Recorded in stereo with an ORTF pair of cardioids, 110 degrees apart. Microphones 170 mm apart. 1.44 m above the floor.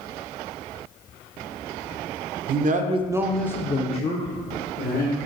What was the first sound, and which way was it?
A man speaking, 60° right.